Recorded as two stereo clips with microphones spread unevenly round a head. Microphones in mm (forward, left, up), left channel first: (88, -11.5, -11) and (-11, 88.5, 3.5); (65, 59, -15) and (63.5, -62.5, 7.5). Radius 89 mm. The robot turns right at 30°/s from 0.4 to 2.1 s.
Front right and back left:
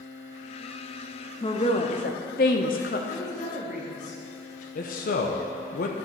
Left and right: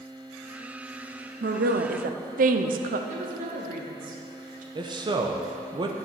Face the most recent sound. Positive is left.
turn(degrees=-60)